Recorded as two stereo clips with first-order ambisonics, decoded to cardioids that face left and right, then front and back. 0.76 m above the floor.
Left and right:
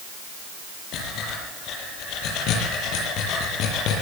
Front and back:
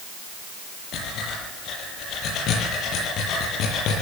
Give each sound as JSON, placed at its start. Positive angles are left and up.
{"t": 0.9, "sound": "breathing", "azimuth_deg": 50, "distance_m": 7.5}